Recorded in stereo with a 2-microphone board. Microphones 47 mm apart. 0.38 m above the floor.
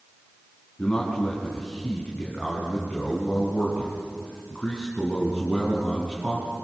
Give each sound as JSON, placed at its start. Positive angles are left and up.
{"t": 0.8, "sound": "a man speaking", "side_deg": 20, "distance_m": 4.0}